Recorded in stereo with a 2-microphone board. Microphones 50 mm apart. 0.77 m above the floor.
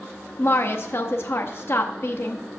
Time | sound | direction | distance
0.4 | a woman speaking | 50° left (ahead or behind) | 0.7 m